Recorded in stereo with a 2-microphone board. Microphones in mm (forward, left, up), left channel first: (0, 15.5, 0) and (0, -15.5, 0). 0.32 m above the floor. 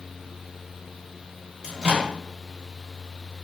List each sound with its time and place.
1.6 s a microwave: 25° right (ahead or behind), 0.9 m